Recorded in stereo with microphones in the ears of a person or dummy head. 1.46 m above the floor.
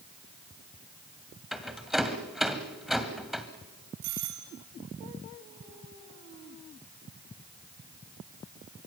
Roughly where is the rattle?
Centre.